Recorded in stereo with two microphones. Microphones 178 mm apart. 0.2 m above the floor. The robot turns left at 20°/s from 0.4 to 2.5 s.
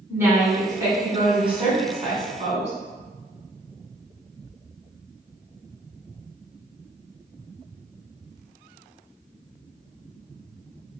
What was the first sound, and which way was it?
A woman speaking, 20° right.